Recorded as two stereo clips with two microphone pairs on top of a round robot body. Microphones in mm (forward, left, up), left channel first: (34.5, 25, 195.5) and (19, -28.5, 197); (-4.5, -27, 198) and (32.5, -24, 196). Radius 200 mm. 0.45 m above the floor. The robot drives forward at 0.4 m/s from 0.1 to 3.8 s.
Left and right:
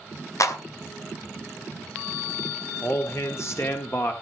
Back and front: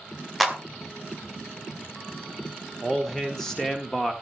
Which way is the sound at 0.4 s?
90° left.